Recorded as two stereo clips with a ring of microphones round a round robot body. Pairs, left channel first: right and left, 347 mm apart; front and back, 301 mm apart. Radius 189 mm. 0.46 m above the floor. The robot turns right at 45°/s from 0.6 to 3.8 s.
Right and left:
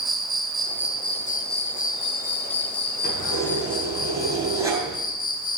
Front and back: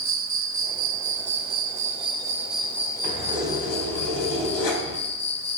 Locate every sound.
0.0 s an insect: straight behind, 1.3 m; by 5.6 s 35° right, 1.3 m
3.0 s keys jangling: 25° right, 3 m; by 5.0 s 10° left, 3 m